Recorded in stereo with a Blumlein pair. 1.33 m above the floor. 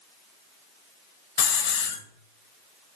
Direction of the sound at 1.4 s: 55° left.